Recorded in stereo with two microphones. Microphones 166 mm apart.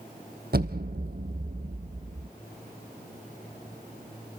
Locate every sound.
0.5 s an explosion: 70° right (ahead or behind), 1.3 m